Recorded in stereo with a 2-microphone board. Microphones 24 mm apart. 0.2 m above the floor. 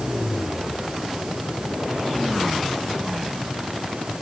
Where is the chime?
No chime in this recording.